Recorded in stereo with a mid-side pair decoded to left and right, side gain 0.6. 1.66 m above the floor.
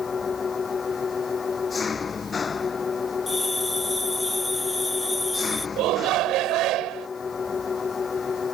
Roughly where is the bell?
Ahead.